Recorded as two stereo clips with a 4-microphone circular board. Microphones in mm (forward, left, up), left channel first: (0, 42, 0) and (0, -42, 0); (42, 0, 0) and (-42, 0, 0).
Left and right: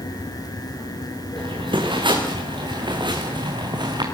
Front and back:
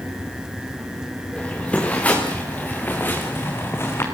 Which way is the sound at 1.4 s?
75° right.